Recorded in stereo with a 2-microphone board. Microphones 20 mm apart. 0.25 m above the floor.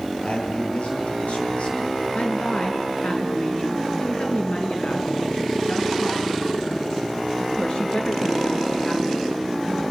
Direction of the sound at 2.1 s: 60° left (ahead or behind).